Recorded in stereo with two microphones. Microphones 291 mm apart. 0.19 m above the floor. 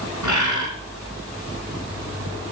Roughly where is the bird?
Right.